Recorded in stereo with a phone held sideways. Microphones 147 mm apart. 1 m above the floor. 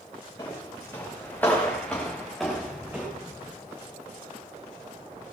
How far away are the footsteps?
About 5.5 m.